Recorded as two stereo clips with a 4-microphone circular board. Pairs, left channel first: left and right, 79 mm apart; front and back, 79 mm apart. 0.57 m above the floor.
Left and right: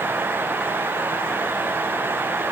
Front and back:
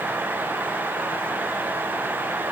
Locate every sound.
Only background noise.